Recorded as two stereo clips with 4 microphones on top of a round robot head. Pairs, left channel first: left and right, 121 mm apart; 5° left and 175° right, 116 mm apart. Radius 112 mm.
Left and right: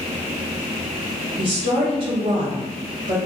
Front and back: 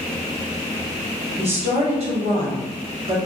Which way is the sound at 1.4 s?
140° right.